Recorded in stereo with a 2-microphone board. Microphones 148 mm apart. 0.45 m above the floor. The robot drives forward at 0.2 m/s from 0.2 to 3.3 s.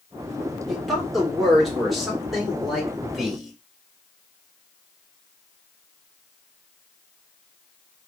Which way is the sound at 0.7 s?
Centre (ahead or behind).